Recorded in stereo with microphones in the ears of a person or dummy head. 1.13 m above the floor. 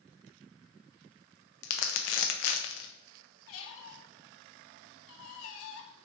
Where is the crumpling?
70° left (ahead or behind), 0.5 m.